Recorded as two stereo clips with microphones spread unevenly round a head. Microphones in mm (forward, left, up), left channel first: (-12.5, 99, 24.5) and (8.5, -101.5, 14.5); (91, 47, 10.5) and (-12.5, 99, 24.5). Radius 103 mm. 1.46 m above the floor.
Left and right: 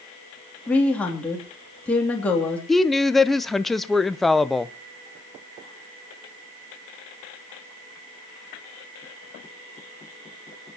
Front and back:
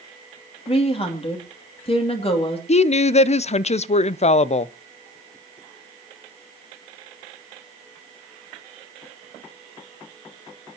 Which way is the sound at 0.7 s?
10° left.